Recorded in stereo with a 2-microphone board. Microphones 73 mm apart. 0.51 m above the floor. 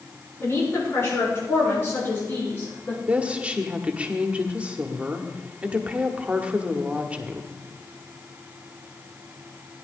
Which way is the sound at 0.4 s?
35° left (ahead or behind).